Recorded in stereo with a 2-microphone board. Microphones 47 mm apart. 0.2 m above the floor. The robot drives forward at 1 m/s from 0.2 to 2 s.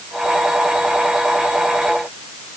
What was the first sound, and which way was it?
Only background noise.